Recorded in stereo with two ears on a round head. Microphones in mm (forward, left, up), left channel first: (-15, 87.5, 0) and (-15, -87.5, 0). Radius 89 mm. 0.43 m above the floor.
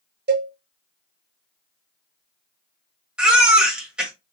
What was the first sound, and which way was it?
A cowbell, 55° right (ahead or behind).